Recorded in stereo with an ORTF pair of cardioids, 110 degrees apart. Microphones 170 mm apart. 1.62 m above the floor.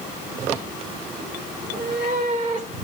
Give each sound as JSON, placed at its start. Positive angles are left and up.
{"t": 1.6, "sound": "a cat meowing", "azimuth_deg": -60, "distance_m": 3.0}